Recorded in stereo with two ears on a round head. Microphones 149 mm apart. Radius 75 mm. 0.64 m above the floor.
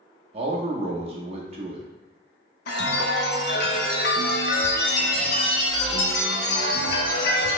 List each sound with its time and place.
0.3 s a man speaking: 35° right (ahead or behind), 0.8 m
2.7 s a chime: 65° left (ahead or behind), 0.8 m